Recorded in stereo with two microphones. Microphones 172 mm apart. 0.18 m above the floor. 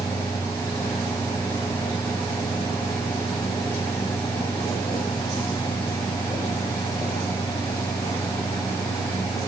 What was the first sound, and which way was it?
Only background noise.